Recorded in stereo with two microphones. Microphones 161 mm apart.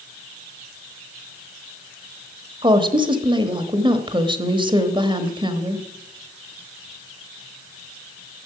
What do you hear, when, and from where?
2.6 s a woman speaking: 30° right (ahead or behind), 1.1 m